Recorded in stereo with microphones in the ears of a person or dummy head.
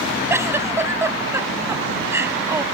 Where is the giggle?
10° right (ahead or behind).